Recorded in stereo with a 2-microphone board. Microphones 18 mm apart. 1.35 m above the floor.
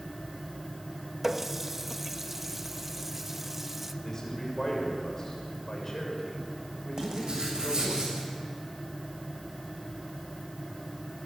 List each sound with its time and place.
1.2 s a running tap: 15° right (ahead or behind), 1.1 m
4.0 s a man speaking: 30° left (ahead or behind), 7 m
7.0 s writing: 45° right (ahead or behind), 7.5 m